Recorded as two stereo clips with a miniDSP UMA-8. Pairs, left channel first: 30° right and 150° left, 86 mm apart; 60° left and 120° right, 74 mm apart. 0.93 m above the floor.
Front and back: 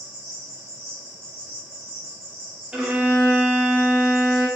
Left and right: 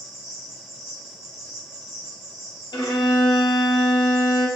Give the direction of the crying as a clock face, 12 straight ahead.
I don't hear crying.